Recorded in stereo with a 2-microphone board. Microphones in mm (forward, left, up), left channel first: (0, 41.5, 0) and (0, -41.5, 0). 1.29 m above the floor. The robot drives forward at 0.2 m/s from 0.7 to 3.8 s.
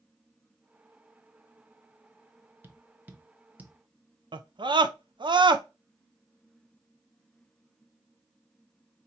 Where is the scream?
70° right (ahead or behind), 0.5 m.